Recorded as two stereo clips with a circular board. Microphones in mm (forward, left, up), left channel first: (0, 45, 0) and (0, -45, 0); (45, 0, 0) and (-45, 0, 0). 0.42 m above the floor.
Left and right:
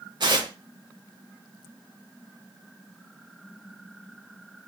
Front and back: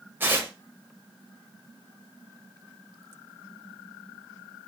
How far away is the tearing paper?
About 0.9 m.